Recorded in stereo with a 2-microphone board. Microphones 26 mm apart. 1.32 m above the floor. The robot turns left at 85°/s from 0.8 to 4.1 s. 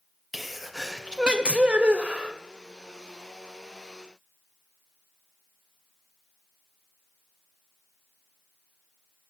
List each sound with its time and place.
0.3 s a sneeze: 5° right, 0.5 m; by 2.4 s 135° right, 0.5 m